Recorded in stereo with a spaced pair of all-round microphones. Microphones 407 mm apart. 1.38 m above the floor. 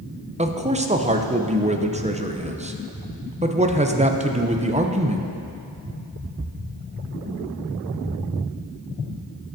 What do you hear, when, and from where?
0.4 s a man speaking: 15° right (ahead or behind), 0.5 m